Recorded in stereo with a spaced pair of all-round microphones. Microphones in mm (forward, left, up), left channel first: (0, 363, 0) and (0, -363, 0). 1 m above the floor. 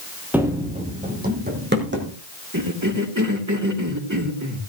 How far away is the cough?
About 2.5 m.